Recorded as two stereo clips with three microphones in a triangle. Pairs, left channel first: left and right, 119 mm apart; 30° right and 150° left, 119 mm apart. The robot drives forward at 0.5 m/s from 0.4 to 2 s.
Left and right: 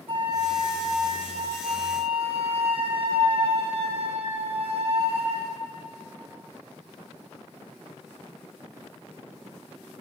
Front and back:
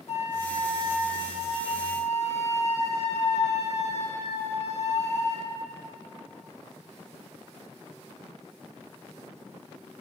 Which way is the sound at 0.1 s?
50° right.